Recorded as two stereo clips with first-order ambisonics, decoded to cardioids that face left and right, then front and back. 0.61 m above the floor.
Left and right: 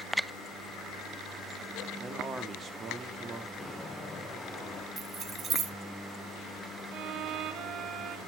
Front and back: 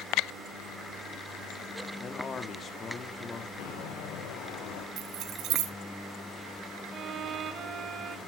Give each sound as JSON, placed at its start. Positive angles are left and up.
{"t": 2.0, "sound": "a man speaking", "azimuth_deg": -45, "distance_m": 1.0}
{"t": 3.6, "sound": "footsteps", "azimuth_deg": 20, "distance_m": 3.5}
{"t": 5.0, "sound": "keys jangling", "azimuth_deg": -155, "distance_m": 0.8}
{"t": 6.9, "sound": "a violin", "azimuth_deg": -125, "distance_m": 0.6}